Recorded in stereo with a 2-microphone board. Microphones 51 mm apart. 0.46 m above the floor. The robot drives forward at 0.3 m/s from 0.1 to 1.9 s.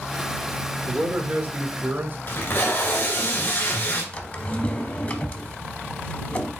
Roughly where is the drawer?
Left.